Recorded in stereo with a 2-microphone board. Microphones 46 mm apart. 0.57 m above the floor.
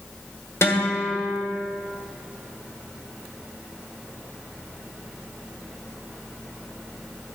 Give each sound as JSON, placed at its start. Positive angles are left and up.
{"t": 0.6, "sound": "a guitar", "side_deg": 70, "distance_m": 1.6}